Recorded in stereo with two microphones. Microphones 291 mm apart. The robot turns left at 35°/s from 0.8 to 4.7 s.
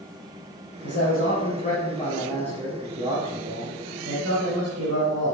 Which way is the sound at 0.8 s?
65° left.